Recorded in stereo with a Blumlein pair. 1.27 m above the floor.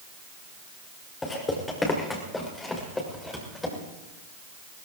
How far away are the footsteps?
About 6 m.